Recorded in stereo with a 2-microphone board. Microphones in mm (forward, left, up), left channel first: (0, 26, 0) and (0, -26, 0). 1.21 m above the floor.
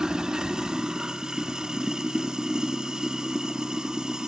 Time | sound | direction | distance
0.0 | running water | 15° right (ahead or behind) | 0.9 m